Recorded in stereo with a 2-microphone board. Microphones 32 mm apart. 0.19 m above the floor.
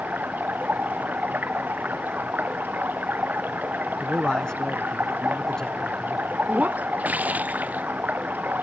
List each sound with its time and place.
0.0 s running water: 90° right
4.0 s a man speaking: 25° left (ahead or behind)
6.5 s breaking glass: 60° right (ahead or behind)